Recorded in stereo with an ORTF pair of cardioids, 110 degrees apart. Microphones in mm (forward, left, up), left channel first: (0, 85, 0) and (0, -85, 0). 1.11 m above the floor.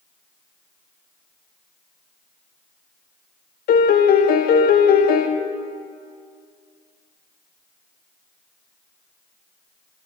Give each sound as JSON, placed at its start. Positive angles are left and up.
{"t": 3.7, "sound": "a piano", "azimuth_deg": 55, "distance_m": 0.6}